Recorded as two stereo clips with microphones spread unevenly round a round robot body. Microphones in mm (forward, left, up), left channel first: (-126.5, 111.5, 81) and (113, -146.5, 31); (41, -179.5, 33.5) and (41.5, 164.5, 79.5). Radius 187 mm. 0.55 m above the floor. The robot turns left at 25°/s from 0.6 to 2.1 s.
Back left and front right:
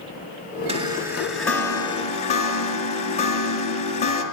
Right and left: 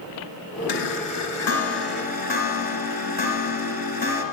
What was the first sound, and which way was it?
A chime, 120° right.